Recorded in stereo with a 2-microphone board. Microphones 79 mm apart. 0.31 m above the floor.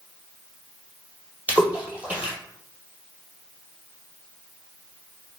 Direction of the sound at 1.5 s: 20° right (ahead or behind).